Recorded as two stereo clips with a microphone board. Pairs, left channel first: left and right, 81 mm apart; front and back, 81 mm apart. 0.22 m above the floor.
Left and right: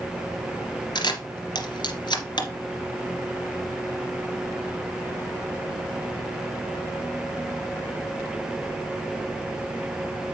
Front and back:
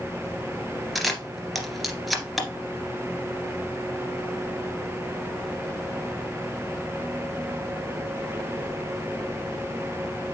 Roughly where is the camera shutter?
Left.